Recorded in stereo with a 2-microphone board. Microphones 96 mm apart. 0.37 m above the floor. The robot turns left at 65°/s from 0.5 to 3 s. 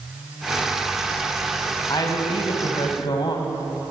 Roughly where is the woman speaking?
Behind left.